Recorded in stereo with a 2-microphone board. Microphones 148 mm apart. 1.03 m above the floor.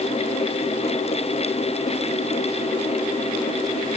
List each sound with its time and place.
Only background noise.